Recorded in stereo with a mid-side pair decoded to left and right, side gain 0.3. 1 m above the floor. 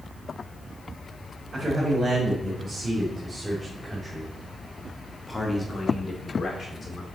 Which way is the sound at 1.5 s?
45° right.